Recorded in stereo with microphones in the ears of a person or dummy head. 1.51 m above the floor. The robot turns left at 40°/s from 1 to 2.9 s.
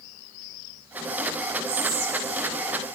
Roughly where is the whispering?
Right.